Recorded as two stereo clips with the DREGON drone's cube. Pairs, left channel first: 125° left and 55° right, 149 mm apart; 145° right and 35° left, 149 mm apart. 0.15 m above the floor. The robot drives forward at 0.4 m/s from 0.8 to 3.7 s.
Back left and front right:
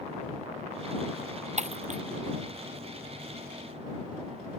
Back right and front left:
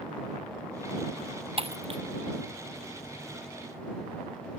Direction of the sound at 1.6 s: 15° right.